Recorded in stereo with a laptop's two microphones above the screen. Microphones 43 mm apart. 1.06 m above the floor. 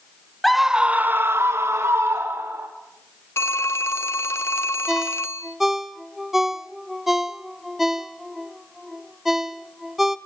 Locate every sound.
0.4 s a scream: 5° left (ahead or behind), 1.0 m; by 2.7 s 65° right (ahead or behind), 2.5 m
3.4 s a phone ringing: 65° left (ahead or behind), 0.7 m
4.9 s a ringtone: 5° right (ahead or behind), 1.4 m